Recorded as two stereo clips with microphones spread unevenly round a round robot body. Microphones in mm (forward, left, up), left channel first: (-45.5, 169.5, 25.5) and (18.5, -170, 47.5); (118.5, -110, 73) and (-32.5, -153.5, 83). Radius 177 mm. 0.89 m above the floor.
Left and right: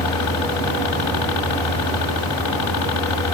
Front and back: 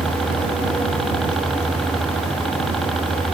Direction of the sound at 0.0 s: 105° left.